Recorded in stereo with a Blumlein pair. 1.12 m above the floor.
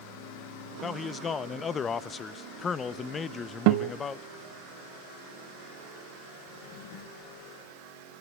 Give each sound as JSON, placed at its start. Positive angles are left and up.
{"t": 0.8, "sound": "a man speaking", "azimuth_deg": 20, "distance_m": 1.0}
{"t": 3.7, "sound": "a guitar", "azimuth_deg": -45, "distance_m": 0.9}
{"t": 6.5, "sound": "a drawer", "azimuth_deg": 45, "distance_m": 6.0}